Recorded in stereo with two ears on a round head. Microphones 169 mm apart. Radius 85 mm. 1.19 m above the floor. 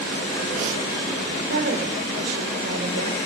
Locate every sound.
1.5 s a woman speaking: 65° right (ahead or behind), 4.5 m